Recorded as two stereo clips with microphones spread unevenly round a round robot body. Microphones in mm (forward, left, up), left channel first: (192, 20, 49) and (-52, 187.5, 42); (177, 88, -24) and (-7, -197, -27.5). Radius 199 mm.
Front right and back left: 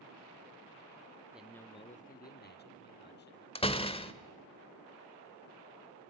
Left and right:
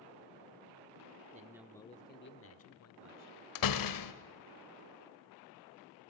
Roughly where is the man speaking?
Behind right.